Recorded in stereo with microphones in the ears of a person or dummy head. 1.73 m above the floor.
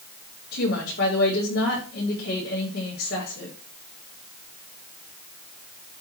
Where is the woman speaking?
55° left (ahead or behind), 5 m.